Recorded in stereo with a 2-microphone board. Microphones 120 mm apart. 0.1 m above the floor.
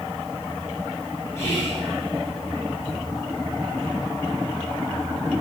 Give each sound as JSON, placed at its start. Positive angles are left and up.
{"t": 1.4, "sound": "whispering", "side_deg": 25, "distance_m": 1.2}